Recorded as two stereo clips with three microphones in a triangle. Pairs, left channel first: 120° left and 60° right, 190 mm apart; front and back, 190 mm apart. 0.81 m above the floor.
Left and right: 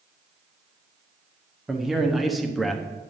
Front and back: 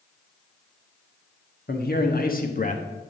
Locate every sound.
1.7 s a man speaking: 30° left, 1.6 m